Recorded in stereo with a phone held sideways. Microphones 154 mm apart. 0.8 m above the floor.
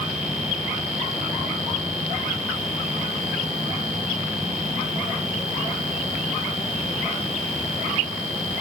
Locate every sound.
Only background noise.